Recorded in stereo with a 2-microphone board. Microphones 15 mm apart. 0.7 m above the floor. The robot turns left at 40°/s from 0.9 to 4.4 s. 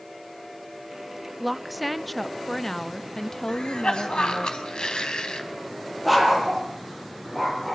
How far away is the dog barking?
About 6 m.